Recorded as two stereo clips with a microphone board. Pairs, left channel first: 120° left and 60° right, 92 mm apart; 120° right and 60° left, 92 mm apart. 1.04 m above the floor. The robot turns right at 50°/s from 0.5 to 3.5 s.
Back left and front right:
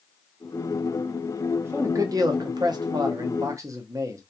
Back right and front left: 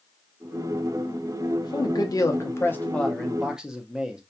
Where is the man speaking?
115° right, 0.5 m; by 4.2 s 20° right, 0.5 m.